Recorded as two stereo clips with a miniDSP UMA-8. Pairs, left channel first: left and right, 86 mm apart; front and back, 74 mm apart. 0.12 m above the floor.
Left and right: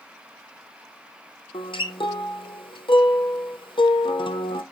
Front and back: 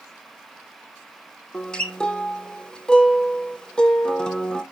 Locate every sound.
1.5 s a guitar: 80° left, 0.8 m